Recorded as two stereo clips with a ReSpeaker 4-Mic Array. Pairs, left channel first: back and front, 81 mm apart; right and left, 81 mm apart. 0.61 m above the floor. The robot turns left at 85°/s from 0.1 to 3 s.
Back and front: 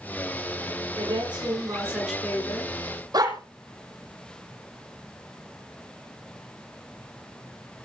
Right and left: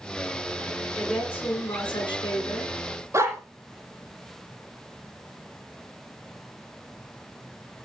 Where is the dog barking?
35° left, 6 m.